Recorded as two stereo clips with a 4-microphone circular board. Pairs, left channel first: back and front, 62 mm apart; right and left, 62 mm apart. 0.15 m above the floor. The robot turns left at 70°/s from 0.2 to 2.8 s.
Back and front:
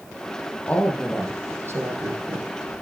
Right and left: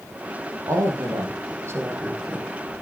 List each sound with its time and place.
0.7 s a woman speaking: 115° left, 4.5 m; by 2.5 s 10° right, 4.5 m